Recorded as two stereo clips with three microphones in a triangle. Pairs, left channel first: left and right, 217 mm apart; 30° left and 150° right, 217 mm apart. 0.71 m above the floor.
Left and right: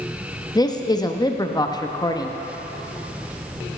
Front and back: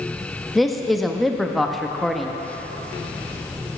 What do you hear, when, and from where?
0.6 s a man speaking: 120° left, 0.6 m